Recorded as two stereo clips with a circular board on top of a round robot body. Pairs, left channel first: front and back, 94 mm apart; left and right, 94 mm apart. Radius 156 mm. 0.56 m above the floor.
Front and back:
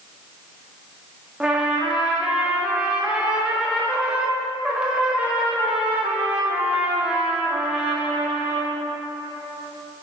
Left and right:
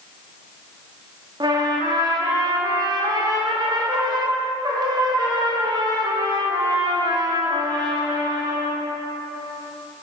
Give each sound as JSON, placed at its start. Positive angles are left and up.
{"t": 1.4, "sound": "a trumpet", "azimuth_deg": -105, "distance_m": 1.6}